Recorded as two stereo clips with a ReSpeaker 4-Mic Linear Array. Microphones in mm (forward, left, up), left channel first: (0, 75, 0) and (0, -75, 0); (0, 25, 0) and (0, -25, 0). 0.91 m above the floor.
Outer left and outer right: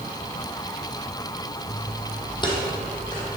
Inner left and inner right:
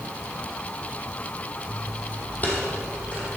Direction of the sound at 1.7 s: 40° left (ahead or behind).